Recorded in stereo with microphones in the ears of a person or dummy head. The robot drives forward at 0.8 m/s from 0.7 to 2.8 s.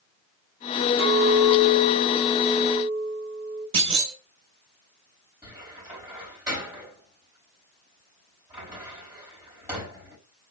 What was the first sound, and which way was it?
A clink, 80° right.